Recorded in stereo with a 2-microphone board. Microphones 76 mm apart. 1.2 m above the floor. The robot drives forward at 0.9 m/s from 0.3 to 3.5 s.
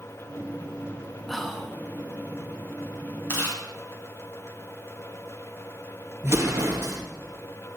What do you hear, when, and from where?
1.3 s whispering: centre (ahead or behind), 1.3 m
3.3 s chewing: 30° left (ahead or behind), 3.5 m
6.2 s an explosion: 35° right (ahead or behind), 1.8 m